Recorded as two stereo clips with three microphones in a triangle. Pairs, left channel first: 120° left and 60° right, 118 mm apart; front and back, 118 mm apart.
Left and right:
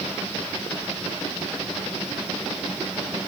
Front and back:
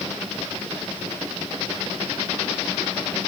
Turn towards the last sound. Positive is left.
No sound to turn to.